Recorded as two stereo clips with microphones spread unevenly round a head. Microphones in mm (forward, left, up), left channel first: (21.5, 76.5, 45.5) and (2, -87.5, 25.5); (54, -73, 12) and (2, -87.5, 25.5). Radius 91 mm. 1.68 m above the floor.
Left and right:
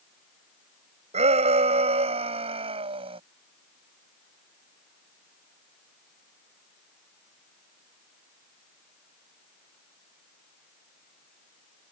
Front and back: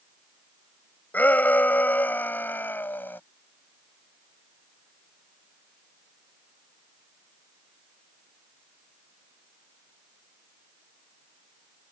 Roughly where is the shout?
Ahead right.